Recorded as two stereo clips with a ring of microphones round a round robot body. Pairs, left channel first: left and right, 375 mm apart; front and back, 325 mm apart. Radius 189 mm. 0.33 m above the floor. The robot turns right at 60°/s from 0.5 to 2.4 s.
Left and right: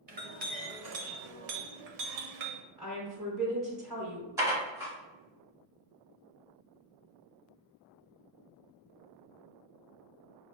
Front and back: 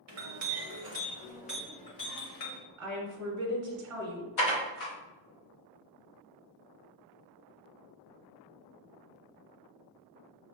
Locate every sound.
0.1 s a clink: 150° right, 0.9 m; by 2.6 s 40° right, 0.9 m
2.8 s a woman speaking: 165° right, 1.6 m
4.4 s dishes clattering: 10° right, 1.2 m